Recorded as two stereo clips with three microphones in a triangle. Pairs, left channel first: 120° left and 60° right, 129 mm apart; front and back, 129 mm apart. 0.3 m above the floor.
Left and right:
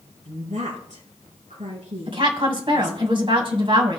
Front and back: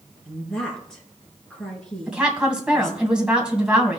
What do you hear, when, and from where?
0.2 s a woman speaking: 85° right, 4 m
2.1 s a woman speaking: 100° right, 2 m